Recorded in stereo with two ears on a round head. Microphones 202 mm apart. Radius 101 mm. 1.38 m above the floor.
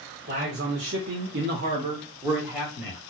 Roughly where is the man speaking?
Right.